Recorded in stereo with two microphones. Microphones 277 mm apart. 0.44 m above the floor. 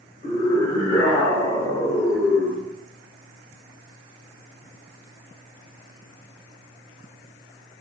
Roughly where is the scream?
Centre.